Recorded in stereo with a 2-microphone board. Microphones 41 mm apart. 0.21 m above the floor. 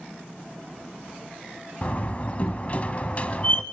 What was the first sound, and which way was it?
A door slam, 35° left (ahead or behind).